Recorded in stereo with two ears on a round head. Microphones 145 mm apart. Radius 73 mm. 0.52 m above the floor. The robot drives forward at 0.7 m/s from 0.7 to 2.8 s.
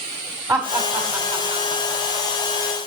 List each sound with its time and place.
0.5 s laughter: 15° right (ahead or behind), 2 m; by 2.3 s 30° right (ahead or behind), 1.2 m